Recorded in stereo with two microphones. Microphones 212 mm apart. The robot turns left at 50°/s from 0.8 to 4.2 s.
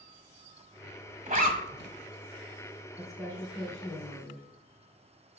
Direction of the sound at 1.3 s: 40° right (ahead or behind).